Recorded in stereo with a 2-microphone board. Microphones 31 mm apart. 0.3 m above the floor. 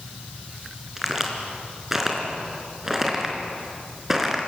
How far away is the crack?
About 3.5 m.